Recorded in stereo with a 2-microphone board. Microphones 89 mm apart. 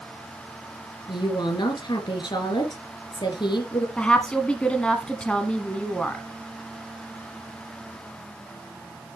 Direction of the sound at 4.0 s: 10° left (ahead or behind).